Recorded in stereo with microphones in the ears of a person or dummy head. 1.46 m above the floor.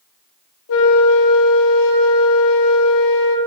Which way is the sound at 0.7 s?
80° left.